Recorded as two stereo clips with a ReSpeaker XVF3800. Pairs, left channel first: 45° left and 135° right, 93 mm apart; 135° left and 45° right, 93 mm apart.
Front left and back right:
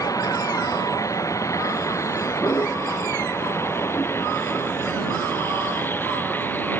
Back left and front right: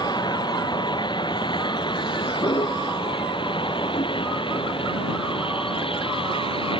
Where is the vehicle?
95° left; by 6.8 s 115° left.